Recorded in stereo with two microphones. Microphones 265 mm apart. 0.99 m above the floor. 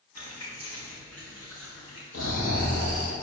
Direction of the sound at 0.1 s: 85° left.